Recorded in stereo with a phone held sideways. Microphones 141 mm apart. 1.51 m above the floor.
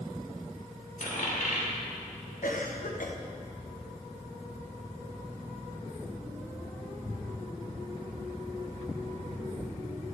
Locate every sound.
1.0 s a dropped coin: 65° left (ahead or behind), 2.5 m
2.4 s a cough: 70° left (ahead or behind), 1.2 m